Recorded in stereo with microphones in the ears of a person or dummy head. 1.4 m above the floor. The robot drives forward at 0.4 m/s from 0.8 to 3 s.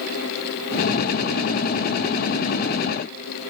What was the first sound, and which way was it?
Only background noise.